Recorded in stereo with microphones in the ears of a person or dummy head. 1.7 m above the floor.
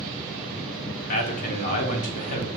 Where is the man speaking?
50° left (ahead or behind), 1.0 m.